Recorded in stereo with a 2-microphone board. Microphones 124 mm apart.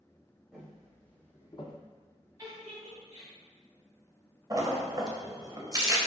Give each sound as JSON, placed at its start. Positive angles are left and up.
{"t": 0.5, "sound": "footsteps", "side_deg": -5, "distance_m": 1.2}
{"t": 2.4, "sound": "a giggle", "side_deg": -35, "distance_m": 1.9}
{"t": 4.5, "sound": "a splash", "side_deg": -30, "distance_m": 0.5}